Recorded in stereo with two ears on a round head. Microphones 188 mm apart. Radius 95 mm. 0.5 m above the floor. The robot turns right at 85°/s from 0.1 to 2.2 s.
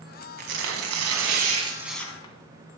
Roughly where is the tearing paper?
Behind right.